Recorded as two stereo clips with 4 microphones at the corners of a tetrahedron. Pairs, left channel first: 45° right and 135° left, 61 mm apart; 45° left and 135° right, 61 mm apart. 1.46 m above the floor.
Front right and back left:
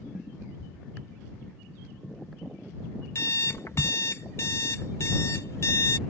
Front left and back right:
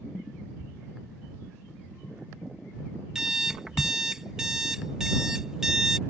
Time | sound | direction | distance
0.6 | a thud | 5° right | ?
3.1 | an alarm clock | 60° right | ?